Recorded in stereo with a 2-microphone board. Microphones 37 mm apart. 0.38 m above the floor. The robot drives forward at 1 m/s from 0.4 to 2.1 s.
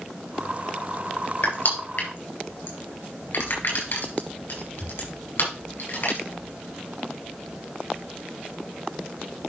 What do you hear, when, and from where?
1.4 s crushing: 70° left (ahead or behind), 4.5 m; by 6.2 s 75° left (ahead or behind), 4 m